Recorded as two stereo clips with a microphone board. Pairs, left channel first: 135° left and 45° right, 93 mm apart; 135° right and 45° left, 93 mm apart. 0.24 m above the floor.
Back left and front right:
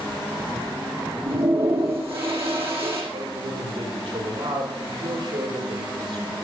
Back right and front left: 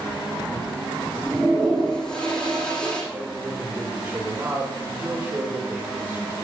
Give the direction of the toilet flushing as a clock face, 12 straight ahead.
2 o'clock.